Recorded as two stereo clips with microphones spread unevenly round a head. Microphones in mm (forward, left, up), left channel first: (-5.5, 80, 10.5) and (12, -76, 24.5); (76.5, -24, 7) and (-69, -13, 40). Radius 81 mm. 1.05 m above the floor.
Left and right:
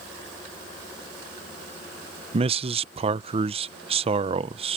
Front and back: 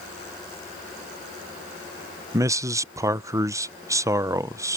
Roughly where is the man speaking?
Right.